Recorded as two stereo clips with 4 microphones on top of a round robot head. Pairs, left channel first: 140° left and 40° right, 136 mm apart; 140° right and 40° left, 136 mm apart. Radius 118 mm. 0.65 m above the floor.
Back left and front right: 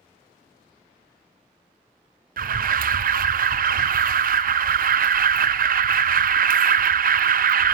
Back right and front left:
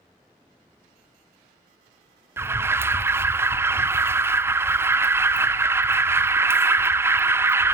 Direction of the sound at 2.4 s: 35° right.